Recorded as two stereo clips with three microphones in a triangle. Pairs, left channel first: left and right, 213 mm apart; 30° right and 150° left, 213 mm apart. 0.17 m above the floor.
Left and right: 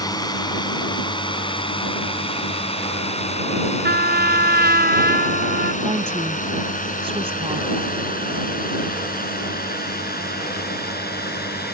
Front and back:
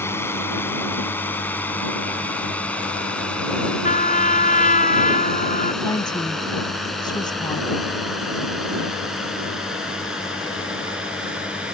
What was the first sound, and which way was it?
A drone, 40° left.